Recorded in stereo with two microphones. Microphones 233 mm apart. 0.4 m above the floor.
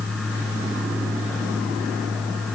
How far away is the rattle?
I don't hear a rattle.